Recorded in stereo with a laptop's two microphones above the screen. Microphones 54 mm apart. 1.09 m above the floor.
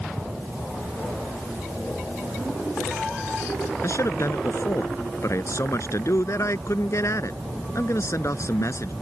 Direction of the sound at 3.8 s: 65° left (ahead or behind).